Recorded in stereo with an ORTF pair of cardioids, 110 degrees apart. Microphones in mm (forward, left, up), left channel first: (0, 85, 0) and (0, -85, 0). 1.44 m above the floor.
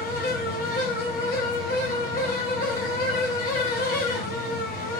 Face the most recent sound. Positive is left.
turn(degrees=60)